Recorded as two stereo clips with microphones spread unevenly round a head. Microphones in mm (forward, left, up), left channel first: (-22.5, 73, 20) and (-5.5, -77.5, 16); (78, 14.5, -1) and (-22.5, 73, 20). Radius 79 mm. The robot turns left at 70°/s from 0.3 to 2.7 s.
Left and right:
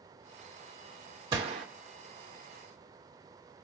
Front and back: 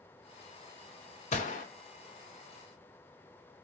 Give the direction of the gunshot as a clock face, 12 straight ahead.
1 o'clock.